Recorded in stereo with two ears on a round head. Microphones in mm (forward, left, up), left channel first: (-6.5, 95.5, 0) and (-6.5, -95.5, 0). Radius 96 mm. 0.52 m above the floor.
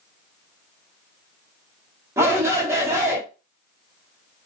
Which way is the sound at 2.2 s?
15° right (ahead or behind).